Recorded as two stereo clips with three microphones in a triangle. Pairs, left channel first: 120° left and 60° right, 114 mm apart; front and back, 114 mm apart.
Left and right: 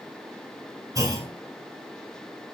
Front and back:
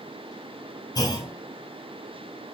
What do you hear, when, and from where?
0.9 s a clunk: 25° right, 0.9 m